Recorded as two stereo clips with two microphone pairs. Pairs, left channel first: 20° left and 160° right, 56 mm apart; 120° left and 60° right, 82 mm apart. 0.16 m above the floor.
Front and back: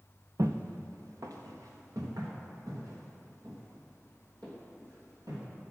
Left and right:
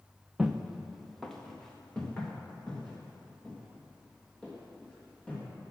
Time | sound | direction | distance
0.4 | footsteps | 140° right | 0.7 m